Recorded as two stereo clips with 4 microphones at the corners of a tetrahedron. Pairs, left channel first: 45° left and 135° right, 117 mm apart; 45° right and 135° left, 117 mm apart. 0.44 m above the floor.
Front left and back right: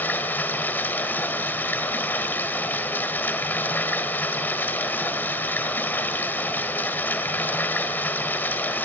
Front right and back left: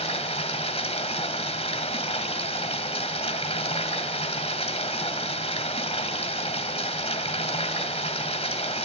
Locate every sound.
0.0 s running water: 25° right, 2 m